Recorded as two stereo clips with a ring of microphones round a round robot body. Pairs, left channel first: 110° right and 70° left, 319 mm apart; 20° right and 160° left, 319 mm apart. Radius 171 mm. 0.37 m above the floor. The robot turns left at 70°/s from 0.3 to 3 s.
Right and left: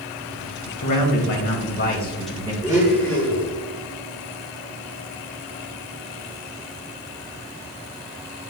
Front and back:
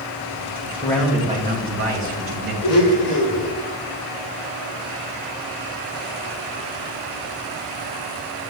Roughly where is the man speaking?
Right.